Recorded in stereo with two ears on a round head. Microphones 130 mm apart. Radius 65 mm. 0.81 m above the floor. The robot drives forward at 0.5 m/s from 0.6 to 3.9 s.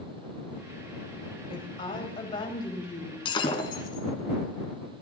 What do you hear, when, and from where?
1.5 s a woman speaking: 40° left (ahead or behind), 3.5 m; by 3.1 s 30° left (ahead or behind), 4.5 m
3.2 s breaking glass: 35° left (ahead or behind), 2 m; by 4.0 s 30° left (ahead or behind), 2.5 m